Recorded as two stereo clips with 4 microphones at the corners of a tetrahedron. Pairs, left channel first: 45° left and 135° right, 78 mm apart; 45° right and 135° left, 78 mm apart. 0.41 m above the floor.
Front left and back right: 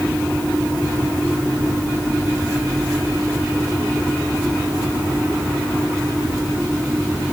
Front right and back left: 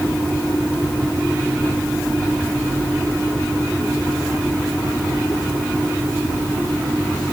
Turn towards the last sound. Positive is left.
No sound to turn to.